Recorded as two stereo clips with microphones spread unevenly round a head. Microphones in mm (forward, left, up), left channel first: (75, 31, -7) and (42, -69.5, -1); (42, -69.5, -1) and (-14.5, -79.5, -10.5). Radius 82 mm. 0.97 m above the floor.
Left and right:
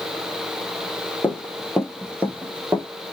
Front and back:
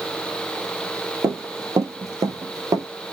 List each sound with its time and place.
1.2 s running footsteps: 155° left, 1.9 m; by 2.9 s 170° right, 1.5 m